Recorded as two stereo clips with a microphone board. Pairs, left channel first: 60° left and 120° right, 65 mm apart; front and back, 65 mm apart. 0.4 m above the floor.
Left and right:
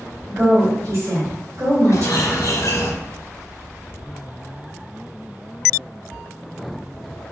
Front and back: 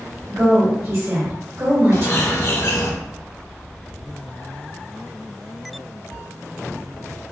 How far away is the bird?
About 0.7 m.